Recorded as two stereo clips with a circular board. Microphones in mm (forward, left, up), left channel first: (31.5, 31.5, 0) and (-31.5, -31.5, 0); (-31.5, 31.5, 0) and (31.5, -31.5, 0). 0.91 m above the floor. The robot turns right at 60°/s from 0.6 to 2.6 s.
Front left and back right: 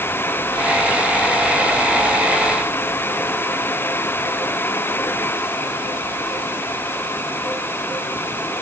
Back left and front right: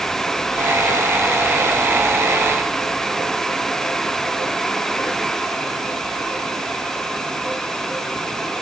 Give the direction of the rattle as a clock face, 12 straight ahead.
I don't hear a rattle.